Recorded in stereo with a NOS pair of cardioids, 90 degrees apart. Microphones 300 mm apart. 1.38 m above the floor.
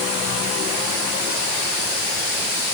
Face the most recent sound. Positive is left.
No sound to turn to.